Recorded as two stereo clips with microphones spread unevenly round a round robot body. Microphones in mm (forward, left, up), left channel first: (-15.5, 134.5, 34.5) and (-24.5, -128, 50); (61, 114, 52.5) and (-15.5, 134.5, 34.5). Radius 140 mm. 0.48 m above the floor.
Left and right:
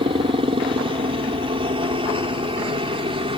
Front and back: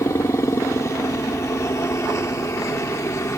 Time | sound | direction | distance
0.0 | a helicopter | 40° right | ?